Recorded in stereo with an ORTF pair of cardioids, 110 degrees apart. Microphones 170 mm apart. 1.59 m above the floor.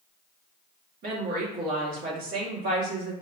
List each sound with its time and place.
1.0 s a woman speaking: 70° right, 1.7 m